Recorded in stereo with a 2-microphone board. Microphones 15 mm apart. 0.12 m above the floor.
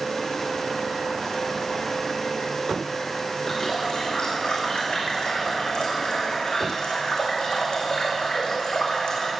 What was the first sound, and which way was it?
A running tap, 70° left (ahead or behind).